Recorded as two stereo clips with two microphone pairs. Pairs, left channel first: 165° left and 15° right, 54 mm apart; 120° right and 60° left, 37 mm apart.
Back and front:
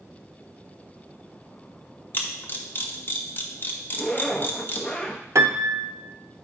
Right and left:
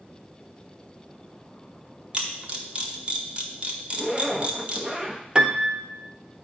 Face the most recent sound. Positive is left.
turn(degrees=-5)